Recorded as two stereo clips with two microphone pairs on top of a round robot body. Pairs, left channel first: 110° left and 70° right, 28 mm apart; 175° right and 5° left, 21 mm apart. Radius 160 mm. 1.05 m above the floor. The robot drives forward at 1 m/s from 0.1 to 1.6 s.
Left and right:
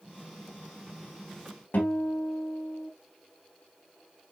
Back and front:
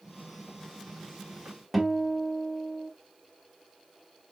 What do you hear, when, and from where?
1.7 s a guitar: 95° left, 3.5 m